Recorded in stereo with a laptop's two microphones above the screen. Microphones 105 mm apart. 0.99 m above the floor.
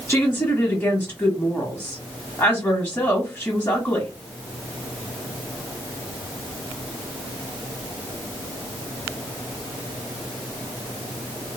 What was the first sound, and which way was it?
A woman speaking, 15° left (ahead or behind).